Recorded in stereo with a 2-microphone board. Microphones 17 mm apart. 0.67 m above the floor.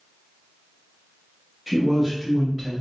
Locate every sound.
1.7 s a man speaking: centre (ahead or behind), 0.7 m; by 2.7 s 10° right (ahead or behind), 1.1 m